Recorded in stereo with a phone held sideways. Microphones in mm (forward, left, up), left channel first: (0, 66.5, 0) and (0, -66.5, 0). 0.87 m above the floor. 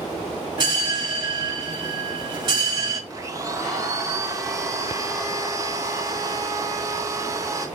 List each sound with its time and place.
0.6 s a bell: 30° right (ahead or behind), 1.6 m
3.1 s a blender: 25° right (ahead or behind), 0.7 m